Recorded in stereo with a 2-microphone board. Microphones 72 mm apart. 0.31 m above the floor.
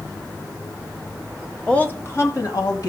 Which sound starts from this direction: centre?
A woman speaking, at 1.7 s.